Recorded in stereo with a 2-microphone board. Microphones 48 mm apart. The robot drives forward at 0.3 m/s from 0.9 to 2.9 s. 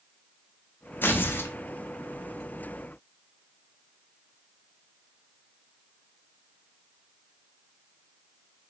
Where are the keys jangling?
No keys jangling in this recording.